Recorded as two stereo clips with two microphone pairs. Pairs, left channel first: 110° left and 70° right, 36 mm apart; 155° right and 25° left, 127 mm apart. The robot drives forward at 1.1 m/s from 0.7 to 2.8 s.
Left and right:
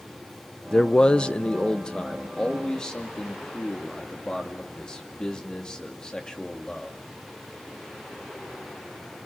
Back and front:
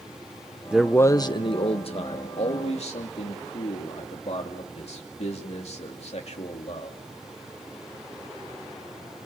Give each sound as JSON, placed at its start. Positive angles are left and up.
{"t": 0.7, "sound": "a man speaking", "azimuth_deg": 95, "distance_m": 0.6}